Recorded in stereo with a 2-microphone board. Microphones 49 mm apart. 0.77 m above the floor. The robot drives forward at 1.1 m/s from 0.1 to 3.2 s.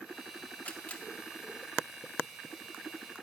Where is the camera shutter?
30° left (ahead or behind), 1.2 m; by 1.0 s 25° left (ahead or behind), 1.5 m.